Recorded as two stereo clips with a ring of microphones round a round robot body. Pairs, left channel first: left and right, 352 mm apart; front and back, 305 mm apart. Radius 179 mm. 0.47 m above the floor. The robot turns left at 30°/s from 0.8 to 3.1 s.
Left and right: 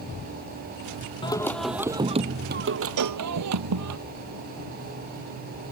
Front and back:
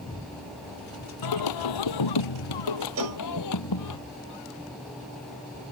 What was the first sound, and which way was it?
Singing, 15° left.